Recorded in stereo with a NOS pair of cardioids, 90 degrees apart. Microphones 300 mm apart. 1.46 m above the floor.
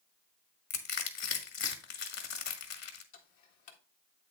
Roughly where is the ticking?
Left.